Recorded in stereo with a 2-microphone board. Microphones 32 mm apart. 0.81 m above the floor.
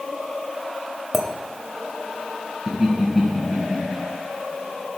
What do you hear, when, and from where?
1.1 s a clink: 5° right (ahead or behind), 1.0 m
2.7 s laughter: 20° right (ahead or behind), 4.5 m